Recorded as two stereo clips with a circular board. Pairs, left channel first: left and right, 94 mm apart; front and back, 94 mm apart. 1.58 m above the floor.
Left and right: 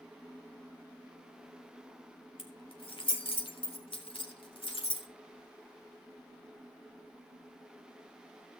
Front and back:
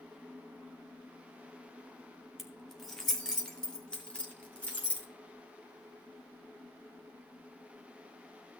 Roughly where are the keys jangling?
Left.